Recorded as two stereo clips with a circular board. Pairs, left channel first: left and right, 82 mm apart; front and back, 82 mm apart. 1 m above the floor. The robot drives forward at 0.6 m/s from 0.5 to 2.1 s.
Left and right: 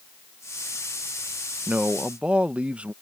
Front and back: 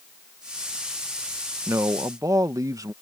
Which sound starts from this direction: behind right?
A man speaking, at 1.7 s.